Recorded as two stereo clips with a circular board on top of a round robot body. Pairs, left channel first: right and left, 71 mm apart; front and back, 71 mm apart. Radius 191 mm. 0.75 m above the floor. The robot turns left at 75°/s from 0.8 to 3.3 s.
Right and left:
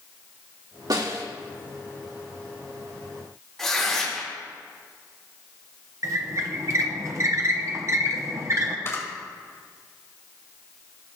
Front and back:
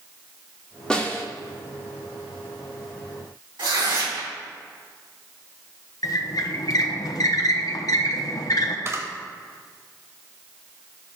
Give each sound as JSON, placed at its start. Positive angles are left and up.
{"t": 0.9, "sound": "a snare drum", "azimuth_deg": 75, "distance_m": 1.7}
{"t": 3.6, "sound": "tearing paper", "azimuth_deg": -175, "distance_m": 3.0}
{"t": 6.0, "sound": "a squeak", "azimuth_deg": 40, "distance_m": 0.7}
{"t": 8.8, "sound": "a camera shutter", "azimuth_deg": -140, "distance_m": 1.9}